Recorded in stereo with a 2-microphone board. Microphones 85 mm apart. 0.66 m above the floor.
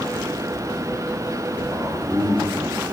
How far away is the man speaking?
About 8.5 m.